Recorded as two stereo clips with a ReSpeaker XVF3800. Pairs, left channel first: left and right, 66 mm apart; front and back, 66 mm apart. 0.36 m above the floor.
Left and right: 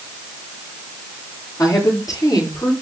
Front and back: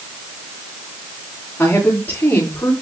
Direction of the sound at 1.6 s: 60° left.